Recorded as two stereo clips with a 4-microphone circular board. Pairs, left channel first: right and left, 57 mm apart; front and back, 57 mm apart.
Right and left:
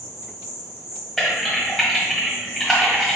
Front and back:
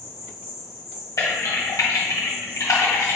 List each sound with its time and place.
0.0 s an insect: 115° right, 1.7 m
1.2 s typing on a keyboard: 10° right, 1.3 m